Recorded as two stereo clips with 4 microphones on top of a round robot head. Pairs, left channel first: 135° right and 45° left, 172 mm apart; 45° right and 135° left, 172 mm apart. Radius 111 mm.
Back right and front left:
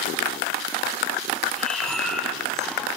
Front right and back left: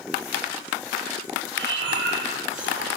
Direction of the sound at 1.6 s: 135° left.